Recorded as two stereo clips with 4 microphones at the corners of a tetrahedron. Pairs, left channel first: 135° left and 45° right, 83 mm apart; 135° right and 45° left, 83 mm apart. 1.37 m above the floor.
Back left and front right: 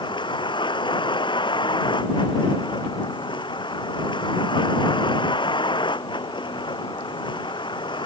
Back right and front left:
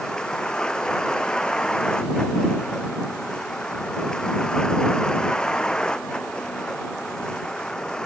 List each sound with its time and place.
0.0 s a vehicle: 145° left